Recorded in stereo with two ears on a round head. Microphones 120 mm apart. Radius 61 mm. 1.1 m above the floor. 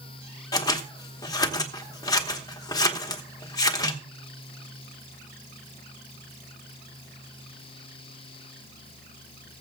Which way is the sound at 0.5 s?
30° left (ahead or behind).